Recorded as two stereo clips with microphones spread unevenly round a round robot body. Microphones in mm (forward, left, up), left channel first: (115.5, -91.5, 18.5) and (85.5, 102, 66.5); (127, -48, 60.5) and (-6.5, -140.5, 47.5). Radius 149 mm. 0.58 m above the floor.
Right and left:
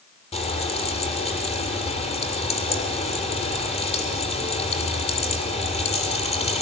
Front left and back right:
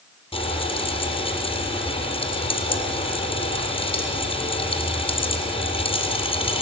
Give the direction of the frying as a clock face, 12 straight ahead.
1 o'clock.